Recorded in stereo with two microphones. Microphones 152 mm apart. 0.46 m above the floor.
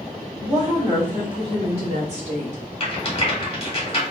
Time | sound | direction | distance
0.4 | a woman speaking | 20° right (ahead or behind) | 1.4 m
2.8 | a rattle | 40° left (ahead or behind) | 1.3 m